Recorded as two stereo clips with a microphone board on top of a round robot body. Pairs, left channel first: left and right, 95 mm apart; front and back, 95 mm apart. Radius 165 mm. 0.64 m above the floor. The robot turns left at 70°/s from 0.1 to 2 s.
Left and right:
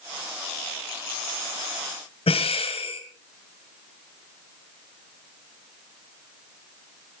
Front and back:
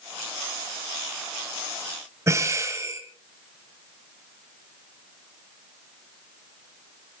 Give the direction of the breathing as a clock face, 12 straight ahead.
8 o'clock.